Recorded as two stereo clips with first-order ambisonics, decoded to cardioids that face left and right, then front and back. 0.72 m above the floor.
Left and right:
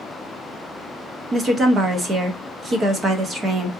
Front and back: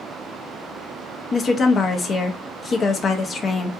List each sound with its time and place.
1.3 s a woman speaking: 45° right, 0.5 m